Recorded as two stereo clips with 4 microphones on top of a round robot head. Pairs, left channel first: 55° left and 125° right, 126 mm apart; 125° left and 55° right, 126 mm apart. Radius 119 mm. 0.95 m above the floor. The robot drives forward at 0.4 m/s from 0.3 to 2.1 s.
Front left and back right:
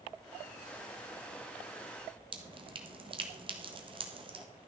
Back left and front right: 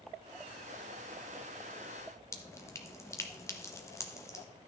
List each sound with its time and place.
2.3 s dripping: 170° right, 1.7 m